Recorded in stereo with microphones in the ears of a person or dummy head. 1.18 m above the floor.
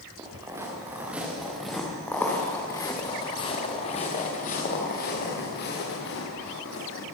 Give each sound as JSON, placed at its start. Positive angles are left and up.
{"t": 0.2, "sound": "footsteps", "side_deg": -15, "distance_m": 6.5}